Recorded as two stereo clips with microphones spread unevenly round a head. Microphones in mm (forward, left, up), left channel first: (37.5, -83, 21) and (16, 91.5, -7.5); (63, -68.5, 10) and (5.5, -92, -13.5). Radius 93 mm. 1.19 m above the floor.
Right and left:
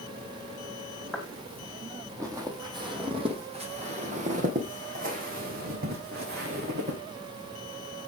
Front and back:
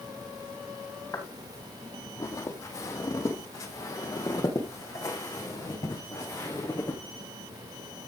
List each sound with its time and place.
1.1 s footsteps: 5° left, 3 m; by 7.0 s 65° left, 4.5 m